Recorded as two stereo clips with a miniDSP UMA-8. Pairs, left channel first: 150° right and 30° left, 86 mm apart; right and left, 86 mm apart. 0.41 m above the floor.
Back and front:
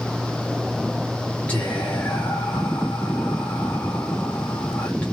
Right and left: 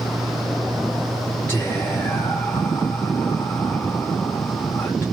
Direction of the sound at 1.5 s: 105° right.